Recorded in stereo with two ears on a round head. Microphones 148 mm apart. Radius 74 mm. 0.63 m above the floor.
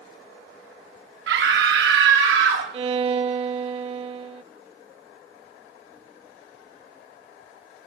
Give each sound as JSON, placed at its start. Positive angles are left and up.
{"t": 1.3, "sound": "a scream", "side_deg": -70, "distance_m": 4.0}
{"t": 2.7, "sound": "a violin", "side_deg": -35, "distance_m": 0.5}